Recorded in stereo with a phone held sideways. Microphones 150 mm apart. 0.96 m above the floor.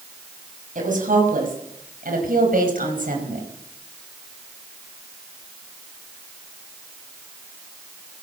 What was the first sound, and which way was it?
A woman speaking, 70° right (ahead or behind).